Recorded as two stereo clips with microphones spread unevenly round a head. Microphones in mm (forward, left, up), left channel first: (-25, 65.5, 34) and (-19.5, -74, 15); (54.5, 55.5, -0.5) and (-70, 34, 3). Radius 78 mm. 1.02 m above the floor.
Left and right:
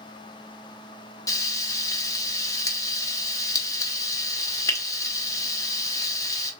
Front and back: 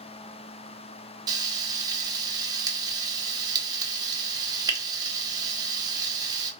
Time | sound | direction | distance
1.3 | frying | 155° left | 0.7 m